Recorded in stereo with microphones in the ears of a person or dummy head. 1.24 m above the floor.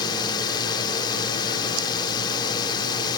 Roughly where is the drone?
Left.